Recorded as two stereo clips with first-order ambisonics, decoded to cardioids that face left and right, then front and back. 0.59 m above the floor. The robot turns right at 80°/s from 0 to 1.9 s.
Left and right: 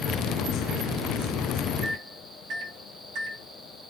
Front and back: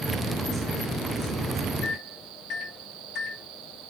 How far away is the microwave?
About 2 m.